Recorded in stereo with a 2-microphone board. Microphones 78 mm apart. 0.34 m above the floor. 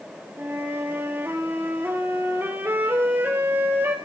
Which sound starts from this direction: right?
A flute, at 0.4 s.